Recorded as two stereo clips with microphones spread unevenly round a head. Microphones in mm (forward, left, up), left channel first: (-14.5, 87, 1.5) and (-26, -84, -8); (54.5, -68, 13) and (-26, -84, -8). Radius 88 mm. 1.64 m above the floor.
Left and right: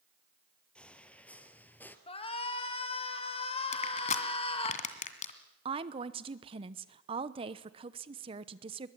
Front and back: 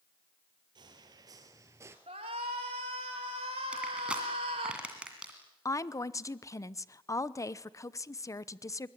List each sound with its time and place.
0.8 s footsteps: 165° left, 2 m; by 2.0 s 140° left, 1.7 m
2.1 s a shout: 145° left, 2.5 m
3.7 s crushing: 100° left, 2 m
5.7 s a woman speaking: 30° right, 0.9 m